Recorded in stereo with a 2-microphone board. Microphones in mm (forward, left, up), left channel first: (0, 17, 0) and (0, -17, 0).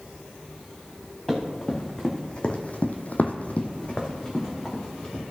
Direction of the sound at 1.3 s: 15° left (ahead or behind).